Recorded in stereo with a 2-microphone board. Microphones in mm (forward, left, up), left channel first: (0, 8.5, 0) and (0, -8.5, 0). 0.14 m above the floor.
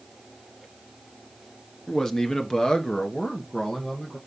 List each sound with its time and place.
1.9 s a man speaking: 25° left (ahead or behind), 1.3 m; by 4.2 s 65° left (ahead or behind), 3 m